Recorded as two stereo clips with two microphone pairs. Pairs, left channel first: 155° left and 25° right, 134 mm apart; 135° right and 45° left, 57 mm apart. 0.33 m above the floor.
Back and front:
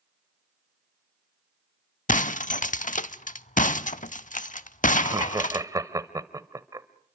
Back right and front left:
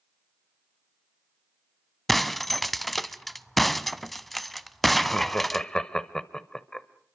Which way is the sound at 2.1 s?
135° left.